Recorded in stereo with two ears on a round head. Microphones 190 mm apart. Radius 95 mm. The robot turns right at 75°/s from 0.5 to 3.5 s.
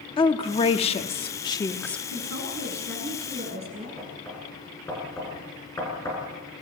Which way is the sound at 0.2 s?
25° left (ahead or behind).